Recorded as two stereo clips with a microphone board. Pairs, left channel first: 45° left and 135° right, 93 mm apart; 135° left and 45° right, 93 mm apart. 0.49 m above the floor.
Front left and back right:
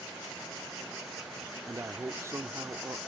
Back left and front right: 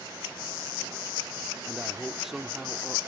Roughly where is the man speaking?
Behind right.